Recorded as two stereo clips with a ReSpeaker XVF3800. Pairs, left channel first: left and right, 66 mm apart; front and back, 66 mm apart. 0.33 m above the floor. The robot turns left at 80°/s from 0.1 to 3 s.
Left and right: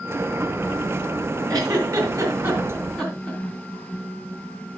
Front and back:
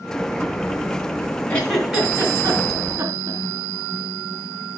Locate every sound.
1.5 s a giggle: 65° right, 3 m; by 3.4 s 170° left, 3 m